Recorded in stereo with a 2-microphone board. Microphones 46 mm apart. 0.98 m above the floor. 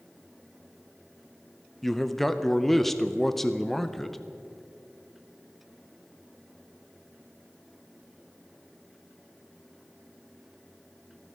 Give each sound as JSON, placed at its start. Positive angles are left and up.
{"t": 1.8, "sound": "a man speaking", "side_deg": 5, "distance_m": 0.6}